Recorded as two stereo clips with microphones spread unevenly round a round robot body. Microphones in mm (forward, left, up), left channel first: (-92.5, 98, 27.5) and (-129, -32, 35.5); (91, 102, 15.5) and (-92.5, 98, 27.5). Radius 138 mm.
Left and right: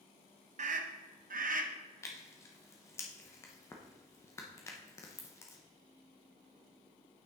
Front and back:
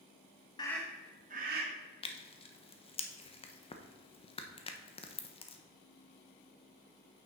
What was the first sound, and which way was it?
A scream, 65° right.